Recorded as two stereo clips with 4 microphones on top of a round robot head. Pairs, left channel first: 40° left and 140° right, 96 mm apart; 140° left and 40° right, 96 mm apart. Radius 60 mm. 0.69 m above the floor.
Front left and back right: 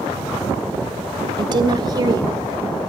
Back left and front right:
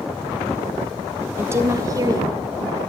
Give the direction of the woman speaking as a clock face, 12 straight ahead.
3 o'clock.